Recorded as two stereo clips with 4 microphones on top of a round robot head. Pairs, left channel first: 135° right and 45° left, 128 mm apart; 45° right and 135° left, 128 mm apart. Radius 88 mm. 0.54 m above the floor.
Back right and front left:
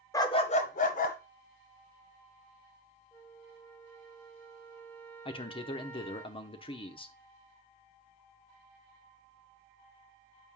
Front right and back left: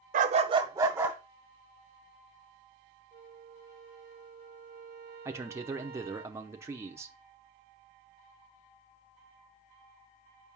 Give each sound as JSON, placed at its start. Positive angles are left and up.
{"t": 0.1, "sound": "a dog barking", "azimuth_deg": 155, "distance_m": 0.7}
{"t": 3.1, "sound": "a flute", "azimuth_deg": 145, "distance_m": 0.9}
{"t": 5.2, "sound": "a man speaking", "azimuth_deg": -160, "distance_m": 0.8}